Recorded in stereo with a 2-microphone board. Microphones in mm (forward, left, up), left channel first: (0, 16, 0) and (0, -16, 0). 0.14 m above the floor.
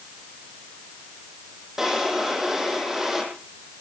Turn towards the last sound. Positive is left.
turn(degrees=-15)  # may be behind; listen again after turning